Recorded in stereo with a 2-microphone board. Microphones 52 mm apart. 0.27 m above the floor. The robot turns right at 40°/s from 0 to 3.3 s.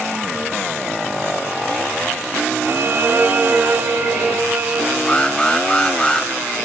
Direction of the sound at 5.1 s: 20° left (ahead or behind).